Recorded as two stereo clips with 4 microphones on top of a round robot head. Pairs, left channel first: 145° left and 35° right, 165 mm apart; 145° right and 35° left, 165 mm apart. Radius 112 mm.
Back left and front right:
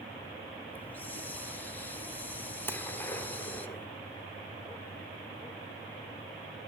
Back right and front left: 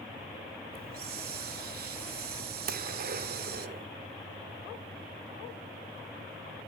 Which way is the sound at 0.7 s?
65° left.